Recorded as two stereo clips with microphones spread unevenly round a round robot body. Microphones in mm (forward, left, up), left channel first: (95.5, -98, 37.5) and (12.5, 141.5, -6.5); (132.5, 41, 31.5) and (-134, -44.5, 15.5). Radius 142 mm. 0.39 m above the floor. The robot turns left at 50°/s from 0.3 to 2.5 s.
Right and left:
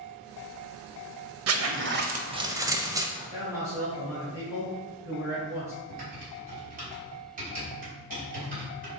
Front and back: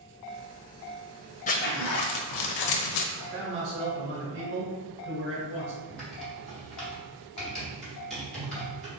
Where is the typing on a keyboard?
110° left, 1.5 m.